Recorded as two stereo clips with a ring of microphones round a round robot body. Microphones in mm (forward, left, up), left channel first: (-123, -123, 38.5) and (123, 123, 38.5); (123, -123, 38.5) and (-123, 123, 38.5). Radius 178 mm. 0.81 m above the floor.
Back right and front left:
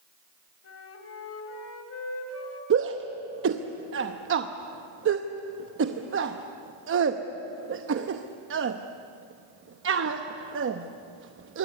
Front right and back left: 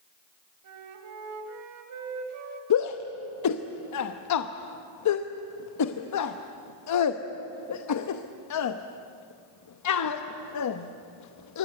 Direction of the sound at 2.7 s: 10° right.